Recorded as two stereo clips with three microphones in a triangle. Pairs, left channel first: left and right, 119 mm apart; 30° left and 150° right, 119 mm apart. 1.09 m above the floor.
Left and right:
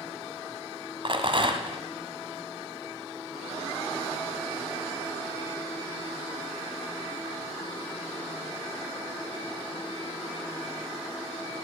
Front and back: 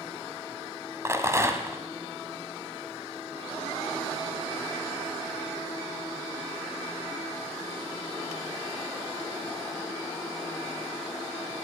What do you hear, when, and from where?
1.1 s a rattle: 95° right, 1.3 m